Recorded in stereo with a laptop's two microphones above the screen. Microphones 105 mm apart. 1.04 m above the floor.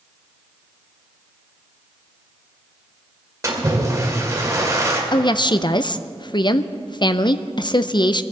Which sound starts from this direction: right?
A splash, at 3.4 s.